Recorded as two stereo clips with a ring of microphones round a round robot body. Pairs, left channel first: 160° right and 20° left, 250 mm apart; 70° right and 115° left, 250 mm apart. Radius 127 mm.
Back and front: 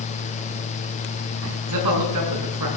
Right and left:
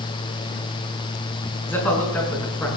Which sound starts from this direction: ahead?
A man speaking, at 1.7 s.